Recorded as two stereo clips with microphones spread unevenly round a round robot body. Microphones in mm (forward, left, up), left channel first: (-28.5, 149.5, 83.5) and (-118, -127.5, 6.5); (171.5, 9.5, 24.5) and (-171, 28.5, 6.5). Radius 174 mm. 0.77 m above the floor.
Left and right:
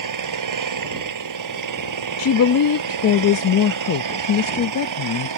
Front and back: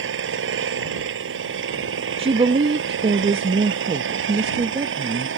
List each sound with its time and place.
0.0 s an engine running: 125° right
2.2 s a woman speaking: 110° left